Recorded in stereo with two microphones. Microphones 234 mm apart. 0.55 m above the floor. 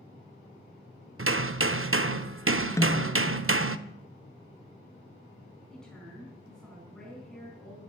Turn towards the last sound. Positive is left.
turn(degrees=0)  # may be behind; listen again after turning